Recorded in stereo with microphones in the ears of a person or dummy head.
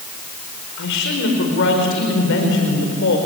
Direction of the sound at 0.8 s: 60° left (ahead or behind).